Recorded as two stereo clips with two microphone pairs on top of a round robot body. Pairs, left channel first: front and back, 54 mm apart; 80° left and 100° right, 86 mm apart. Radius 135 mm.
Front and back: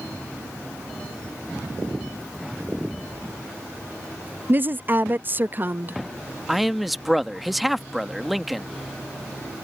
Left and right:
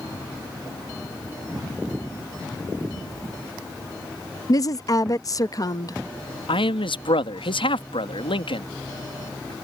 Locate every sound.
4.5 s a woman speaking: 130° left
6.5 s a man speaking: 90° left